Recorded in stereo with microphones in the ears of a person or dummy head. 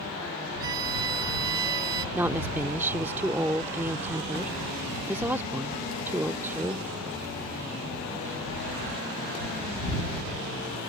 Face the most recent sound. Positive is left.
turn(degrees=-5)  # may be behind; listen again after turning